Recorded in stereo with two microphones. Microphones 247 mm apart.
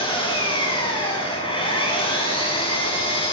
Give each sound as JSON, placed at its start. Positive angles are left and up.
{"t": 0.0, "sound": "an engine running", "side_deg": 20, "distance_m": 8.5}